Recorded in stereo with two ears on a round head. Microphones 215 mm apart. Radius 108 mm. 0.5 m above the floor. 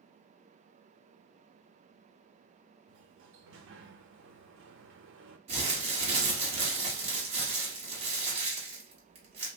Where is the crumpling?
25° right (ahead or behind), 1.3 m.